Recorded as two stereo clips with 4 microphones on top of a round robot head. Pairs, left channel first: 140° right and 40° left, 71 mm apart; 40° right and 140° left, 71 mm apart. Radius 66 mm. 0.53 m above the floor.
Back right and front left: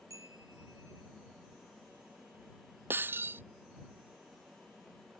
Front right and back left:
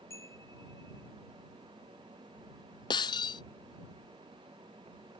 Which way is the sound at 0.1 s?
5° left.